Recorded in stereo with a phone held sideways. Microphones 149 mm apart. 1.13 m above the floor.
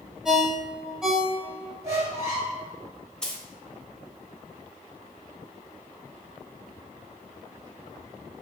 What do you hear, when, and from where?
0.2 s a ringtone: 5° right (ahead or behind), 0.7 m
1.8 s a squeak: 20° right (ahead or behind), 1.2 m
3.2 s a dropped coin: 5° left (ahead or behind), 0.9 m